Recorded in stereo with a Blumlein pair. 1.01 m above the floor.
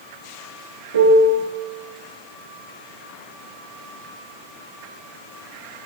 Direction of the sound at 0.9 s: 65° right.